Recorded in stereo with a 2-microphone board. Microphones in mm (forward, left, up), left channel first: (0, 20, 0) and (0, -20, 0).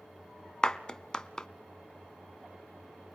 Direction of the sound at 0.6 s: 20° left (ahead or behind).